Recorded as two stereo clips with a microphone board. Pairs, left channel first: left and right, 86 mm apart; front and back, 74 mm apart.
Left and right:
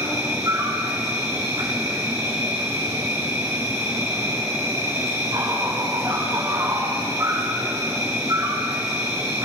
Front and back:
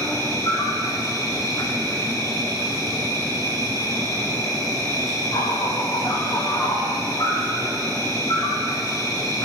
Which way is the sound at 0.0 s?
35° right.